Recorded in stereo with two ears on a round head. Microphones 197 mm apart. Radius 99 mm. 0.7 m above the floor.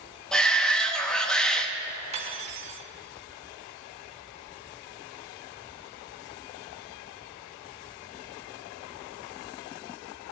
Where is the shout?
5° left (ahead or behind), 1.0 m.